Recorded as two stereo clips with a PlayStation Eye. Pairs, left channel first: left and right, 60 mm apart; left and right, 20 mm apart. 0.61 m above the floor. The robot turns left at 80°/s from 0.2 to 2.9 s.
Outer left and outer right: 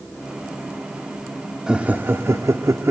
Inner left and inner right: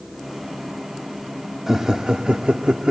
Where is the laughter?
15° right (ahead or behind), 1.2 m; by 2.9 s 45° right (ahead or behind), 1.2 m.